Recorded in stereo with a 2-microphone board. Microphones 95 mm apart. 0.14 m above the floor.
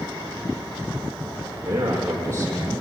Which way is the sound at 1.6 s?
25° right (ahead or behind).